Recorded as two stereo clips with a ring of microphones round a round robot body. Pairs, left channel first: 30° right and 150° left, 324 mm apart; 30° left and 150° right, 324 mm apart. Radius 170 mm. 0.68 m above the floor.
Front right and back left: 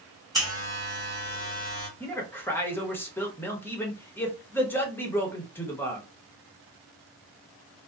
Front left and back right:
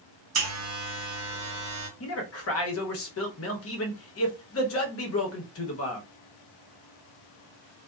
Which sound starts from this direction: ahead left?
A man speaking, at 2.0 s.